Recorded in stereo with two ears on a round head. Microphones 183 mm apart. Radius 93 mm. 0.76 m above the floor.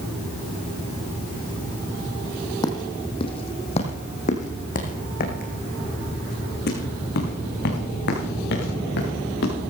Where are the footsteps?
20° left (ahead or behind), 2.5 m; by 9.5 s 65° left (ahead or behind), 5.5 m.